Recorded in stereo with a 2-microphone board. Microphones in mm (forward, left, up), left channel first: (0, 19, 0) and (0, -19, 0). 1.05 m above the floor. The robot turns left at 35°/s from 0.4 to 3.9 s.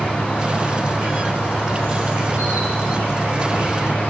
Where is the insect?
25° right, 6.5 m; by 4.1 s 150° right, 6.5 m.